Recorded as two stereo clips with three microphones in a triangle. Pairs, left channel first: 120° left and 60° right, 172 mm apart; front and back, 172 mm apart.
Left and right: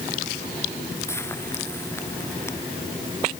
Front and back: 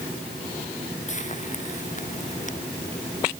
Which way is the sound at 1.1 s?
45° left.